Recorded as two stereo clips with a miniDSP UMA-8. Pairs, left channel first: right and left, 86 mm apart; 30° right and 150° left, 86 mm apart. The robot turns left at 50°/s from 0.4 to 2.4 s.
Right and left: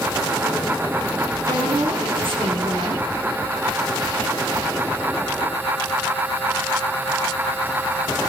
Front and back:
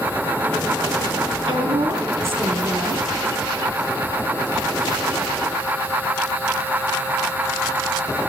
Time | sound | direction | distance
1.5 | a woman speaking | 130° left | 7 m